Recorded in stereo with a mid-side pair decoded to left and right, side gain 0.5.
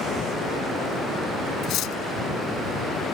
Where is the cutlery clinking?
65° left.